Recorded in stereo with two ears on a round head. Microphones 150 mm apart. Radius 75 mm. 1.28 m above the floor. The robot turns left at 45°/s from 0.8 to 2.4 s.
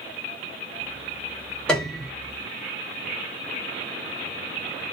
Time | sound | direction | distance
1.7 | a piano | 5° left (ahead or behind) | 1.0 m